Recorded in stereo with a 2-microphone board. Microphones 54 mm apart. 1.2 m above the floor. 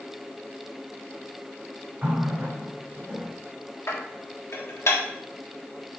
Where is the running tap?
25° right (ahead or behind), 3.5 m.